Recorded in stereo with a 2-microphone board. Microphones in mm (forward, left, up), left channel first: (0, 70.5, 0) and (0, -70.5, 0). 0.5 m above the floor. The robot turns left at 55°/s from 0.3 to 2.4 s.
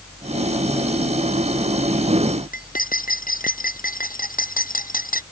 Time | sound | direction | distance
2.5 | cutlery clinking | 70° left (ahead or behind) | ?